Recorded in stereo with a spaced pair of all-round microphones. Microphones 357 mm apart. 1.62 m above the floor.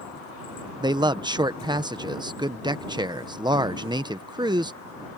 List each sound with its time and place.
0.8 s a man speaking: 10° right (ahead or behind)